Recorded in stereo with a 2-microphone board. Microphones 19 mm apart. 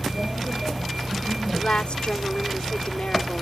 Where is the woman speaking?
75° left (ahead or behind).